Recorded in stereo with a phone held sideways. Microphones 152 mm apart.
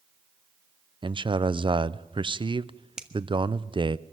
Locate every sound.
1.0 s a man speaking: 35° right (ahead or behind), 0.5 m
3.0 s a finger snap: 5° right (ahead or behind), 1.5 m